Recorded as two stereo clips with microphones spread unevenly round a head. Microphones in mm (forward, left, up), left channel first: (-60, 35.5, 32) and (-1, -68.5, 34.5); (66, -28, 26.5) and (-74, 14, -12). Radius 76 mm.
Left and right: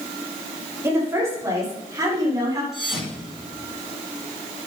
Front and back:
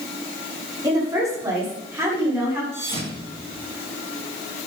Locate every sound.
0.8 s a woman speaking: 130° right, 5 m; by 2.6 s 120° right, 7 m
2.7 s a thud: 145° right, 9 m